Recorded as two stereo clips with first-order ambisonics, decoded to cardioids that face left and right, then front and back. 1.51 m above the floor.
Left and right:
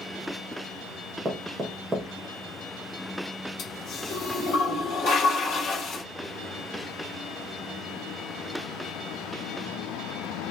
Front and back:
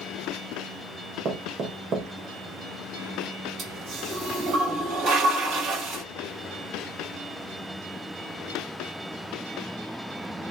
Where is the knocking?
150° right, 0.8 m.